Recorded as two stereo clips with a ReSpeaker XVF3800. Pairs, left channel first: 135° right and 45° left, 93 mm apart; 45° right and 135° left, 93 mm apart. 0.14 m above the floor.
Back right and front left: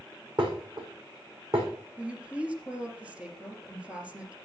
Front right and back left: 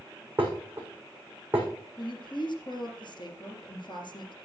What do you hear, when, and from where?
0.4 s dishes clattering: 65° left, 5 m
2.0 s a woman speaking: 30° right, 3 m